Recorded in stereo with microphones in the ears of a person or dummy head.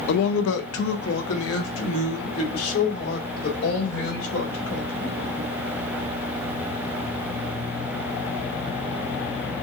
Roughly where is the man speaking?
Left.